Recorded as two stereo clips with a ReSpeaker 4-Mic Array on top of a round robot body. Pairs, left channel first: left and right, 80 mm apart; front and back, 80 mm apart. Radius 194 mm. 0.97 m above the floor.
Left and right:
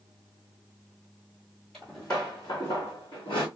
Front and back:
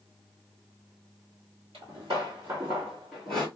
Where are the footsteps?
170° left, 1.1 m; by 3.5 s 75° left, 1.1 m.